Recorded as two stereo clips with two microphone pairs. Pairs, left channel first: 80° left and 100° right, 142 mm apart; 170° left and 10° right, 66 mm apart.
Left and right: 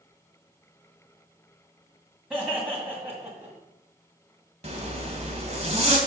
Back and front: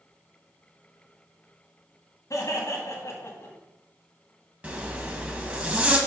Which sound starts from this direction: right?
A zipper, at 4.6 s.